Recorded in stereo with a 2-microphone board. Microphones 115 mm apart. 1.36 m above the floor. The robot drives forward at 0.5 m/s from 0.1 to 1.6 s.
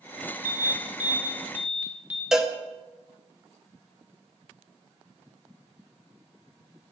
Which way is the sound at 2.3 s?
5° right (ahead or behind).